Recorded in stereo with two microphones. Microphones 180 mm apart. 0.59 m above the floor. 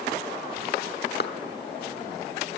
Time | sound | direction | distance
1.2 | a clap | 65° left (ahead or behind) | 1.2 m